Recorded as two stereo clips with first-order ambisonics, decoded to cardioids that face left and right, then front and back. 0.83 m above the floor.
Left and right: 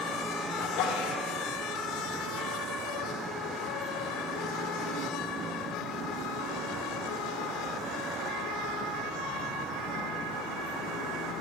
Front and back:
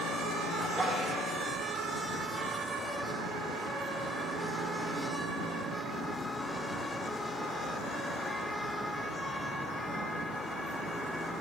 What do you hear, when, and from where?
0.6 s a sneeze: 100° left, 3.5 m